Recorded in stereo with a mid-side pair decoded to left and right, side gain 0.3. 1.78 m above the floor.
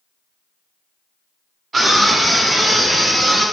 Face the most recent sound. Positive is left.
turn(degrees=-30)